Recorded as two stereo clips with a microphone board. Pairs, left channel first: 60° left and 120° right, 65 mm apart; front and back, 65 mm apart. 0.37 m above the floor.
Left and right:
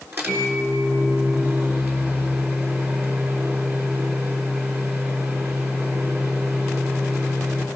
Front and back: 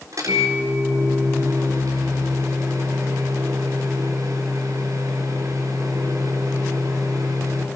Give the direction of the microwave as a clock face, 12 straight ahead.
6 o'clock.